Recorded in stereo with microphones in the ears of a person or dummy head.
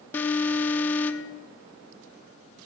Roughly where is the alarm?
Centre.